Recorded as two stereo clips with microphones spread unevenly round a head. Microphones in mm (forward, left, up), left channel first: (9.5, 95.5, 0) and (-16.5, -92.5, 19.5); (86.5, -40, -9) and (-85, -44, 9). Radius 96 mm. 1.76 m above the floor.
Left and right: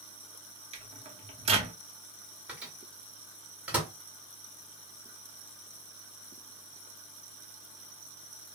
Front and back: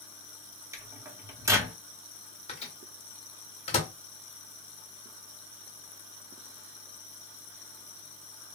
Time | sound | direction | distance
0.7 | a microwave | 125° right | 0.7 m
2.5 | a microwave | 30° right | 1.0 m